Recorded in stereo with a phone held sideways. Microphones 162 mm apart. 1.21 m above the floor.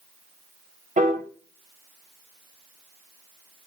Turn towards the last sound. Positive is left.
turn(degrees=-50)  # may be behind; listen again after turning